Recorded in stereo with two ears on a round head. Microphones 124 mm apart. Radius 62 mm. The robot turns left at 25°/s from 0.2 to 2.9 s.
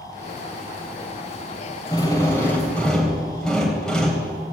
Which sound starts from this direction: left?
A drill, at 1.9 s.